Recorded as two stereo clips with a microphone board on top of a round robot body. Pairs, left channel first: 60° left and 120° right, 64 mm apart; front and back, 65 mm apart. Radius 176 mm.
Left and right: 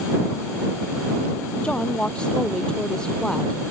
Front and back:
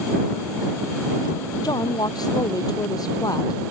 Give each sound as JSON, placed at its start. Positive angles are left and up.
{"t": 1.6, "sound": "a woman speaking", "azimuth_deg": -15}